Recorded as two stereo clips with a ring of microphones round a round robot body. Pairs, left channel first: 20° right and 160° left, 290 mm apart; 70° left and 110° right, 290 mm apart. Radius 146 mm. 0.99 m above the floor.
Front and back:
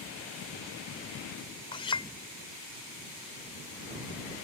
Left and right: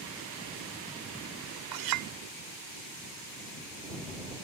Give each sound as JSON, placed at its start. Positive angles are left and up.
{"t": 1.7, "sound": "a clink", "azimuth_deg": -95}